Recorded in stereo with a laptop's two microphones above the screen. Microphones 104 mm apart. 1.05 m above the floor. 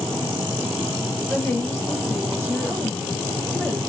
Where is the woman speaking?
10° left (ahead or behind), 2.5 m.